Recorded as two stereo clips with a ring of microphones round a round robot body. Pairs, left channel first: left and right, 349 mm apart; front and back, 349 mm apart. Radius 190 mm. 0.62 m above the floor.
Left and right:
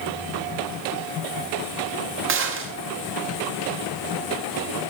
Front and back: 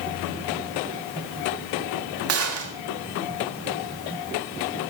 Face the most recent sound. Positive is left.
turn(degrees=-140)